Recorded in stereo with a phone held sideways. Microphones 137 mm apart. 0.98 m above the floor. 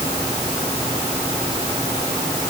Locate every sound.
Only background noise.